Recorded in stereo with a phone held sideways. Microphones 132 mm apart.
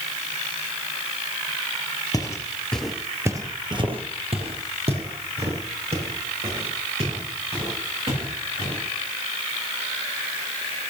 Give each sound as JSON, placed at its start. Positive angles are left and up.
{"t": 2.1, "sound": "footsteps", "side_deg": 25, "distance_m": 1.7}